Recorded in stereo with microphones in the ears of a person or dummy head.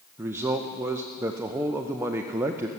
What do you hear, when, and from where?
0.2 s a man speaking: 10° right (ahead or behind), 0.5 m